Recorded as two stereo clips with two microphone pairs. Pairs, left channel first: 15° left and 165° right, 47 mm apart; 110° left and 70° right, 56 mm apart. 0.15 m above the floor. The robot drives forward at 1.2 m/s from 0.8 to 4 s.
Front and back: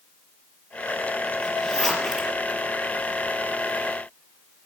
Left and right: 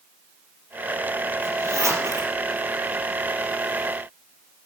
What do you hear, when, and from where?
1.4 s a zipper: 60° right, 3 m; by 2.3 s 80° right, 2.5 m